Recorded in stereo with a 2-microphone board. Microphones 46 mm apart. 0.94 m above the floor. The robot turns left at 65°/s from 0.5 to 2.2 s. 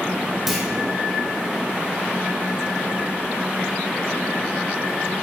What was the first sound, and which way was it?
A clunk, 5° right (ahead or behind).